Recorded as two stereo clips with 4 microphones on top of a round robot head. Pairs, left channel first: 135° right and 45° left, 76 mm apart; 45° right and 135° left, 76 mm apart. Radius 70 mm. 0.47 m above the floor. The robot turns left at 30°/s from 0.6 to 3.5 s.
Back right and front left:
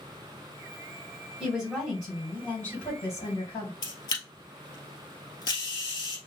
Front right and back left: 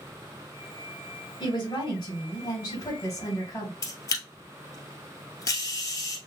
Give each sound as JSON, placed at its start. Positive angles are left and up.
{"t": 1.4, "sound": "a woman speaking", "azimuth_deg": -40, "distance_m": 3.0}
{"t": 3.8, "sound": "a camera shutter", "azimuth_deg": -95, "distance_m": 1.7}